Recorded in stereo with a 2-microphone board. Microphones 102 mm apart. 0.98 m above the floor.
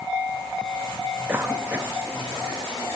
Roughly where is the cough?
Centre.